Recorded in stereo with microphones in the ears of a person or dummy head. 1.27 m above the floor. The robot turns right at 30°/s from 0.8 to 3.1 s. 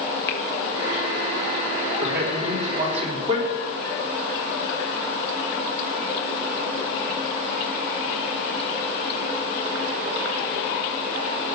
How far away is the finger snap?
About 1.8 m.